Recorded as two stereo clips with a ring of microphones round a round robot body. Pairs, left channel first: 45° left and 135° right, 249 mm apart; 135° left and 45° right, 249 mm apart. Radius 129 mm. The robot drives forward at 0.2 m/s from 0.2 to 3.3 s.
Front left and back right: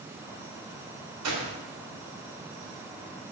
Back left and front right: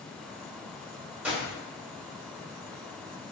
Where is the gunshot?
130° right, 3 m.